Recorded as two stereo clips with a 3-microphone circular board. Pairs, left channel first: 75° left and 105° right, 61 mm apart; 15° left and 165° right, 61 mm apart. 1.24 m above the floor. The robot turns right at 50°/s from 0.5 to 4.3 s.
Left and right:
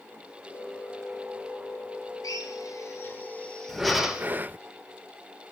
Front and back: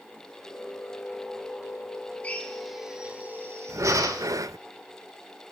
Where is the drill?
80° left, 3 m; by 4.3 s 175° right, 3 m.